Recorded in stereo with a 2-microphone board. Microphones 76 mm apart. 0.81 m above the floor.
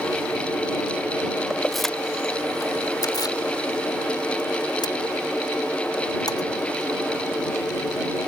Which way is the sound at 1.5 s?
5° right (ahead or behind).